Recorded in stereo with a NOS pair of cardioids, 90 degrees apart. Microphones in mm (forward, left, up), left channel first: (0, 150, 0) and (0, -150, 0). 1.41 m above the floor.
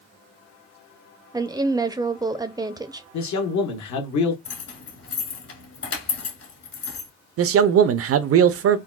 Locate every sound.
1.3 s a woman speaking: 15° right, 0.5 m
3.1 s a man speaking: 65° left, 1.1 m
4.5 s keys jangling: 55° left, 1.9 m
7.4 s a man speaking: 50° right, 0.5 m